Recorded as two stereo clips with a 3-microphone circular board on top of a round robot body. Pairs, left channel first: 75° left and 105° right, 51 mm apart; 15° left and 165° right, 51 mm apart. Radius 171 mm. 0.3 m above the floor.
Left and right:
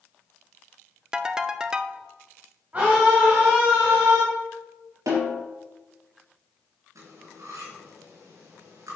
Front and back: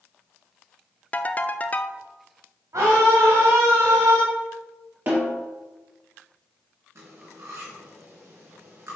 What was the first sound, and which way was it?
A ringtone, 35° right.